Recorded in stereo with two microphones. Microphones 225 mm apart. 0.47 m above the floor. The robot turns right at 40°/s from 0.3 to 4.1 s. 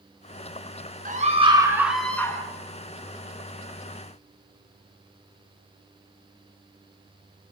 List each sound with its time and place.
1.1 s a scream: 40° right, 6 m; by 2.4 s 15° left, 6 m